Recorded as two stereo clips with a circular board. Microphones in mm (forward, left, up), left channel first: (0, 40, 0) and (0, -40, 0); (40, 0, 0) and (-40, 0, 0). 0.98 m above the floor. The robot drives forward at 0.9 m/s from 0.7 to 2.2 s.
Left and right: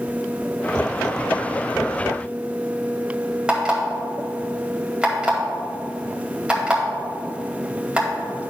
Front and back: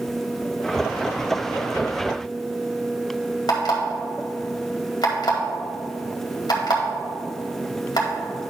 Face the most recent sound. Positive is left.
turn(degrees=-15)